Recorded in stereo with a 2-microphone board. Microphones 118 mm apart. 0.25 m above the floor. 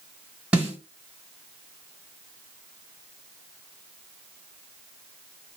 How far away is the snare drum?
About 1.5 m.